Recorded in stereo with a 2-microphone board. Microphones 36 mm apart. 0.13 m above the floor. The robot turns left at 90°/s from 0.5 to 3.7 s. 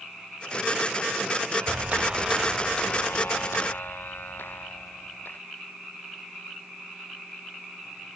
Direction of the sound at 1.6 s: 105° right.